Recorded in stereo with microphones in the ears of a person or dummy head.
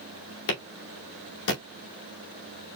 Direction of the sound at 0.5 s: 70° left (ahead or behind).